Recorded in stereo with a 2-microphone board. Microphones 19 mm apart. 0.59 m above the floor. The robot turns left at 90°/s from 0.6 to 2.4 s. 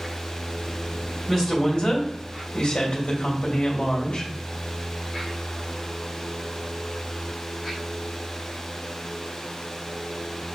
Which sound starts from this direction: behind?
A woman speaking, at 1.3 s.